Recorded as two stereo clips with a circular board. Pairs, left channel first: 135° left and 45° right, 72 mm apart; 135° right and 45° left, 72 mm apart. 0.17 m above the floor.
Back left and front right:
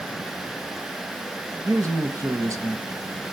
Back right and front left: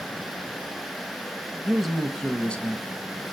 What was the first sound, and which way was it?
A man speaking, 35° right.